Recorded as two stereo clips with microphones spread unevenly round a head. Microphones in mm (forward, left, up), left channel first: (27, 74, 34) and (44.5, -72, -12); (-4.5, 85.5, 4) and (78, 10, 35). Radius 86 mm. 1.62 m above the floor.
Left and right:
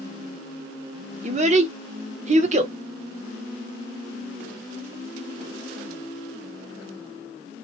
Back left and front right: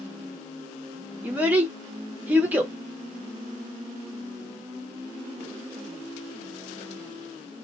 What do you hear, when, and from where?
1.2 s a child speaking: 55° right, 0.6 m